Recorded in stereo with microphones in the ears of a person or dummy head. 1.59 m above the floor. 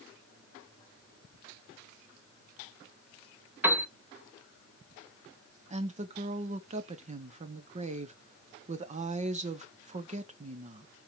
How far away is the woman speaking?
About 0.9 m.